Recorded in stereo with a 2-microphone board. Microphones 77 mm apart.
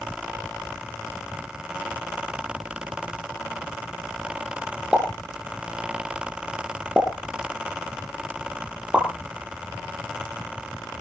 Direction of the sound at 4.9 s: 15° right (ahead or behind).